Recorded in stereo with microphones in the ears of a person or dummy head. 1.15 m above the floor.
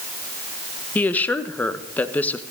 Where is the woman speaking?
15° left (ahead or behind), 0.9 m.